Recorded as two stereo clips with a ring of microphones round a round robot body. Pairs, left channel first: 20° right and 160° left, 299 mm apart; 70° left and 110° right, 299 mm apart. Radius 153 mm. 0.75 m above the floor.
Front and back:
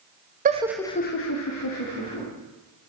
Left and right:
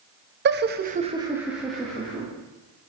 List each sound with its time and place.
0.5 s laughter: 150° right, 0.8 m; by 2.3 s 15° right, 1.9 m